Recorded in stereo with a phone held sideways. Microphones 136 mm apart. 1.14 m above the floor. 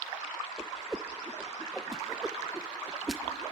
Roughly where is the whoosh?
Centre.